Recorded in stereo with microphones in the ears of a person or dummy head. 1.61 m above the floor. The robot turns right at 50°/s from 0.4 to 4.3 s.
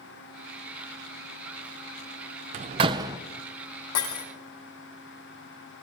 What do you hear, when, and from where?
2.5 s a door slam: 40° right (ahead or behind), 0.7 m; by 3.2 s 15° right (ahead or behind), 0.7 m
4.0 s breaking glass: 70° left (ahead or behind), 3.5 m; by 4.2 s 60° left (ahead or behind), 3.5 m